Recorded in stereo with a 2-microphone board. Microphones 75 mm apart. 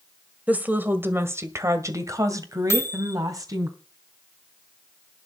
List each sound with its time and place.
0.5 s a woman speaking: 20° right (ahead or behind), 1.7 m; by 3.7 s 55° right (ahead or behind), 2.5 m
2.7 s a microwave: 35° left (ahead or behind), 0.9 m